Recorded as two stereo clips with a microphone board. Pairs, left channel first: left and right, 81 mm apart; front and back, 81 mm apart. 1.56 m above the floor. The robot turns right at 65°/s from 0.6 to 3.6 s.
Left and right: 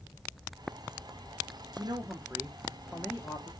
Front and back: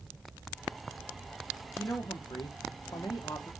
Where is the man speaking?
55° right, 0.7 m; by 3.5 s 55° left, 0.7 m.